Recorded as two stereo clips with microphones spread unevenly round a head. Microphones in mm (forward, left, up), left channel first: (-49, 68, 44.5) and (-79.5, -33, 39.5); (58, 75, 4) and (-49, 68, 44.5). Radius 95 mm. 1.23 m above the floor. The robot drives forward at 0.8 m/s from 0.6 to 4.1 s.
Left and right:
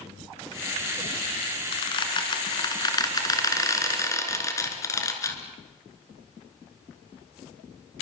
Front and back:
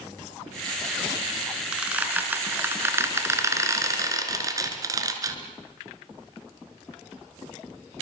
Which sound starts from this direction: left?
A squeak, at 1.7 s.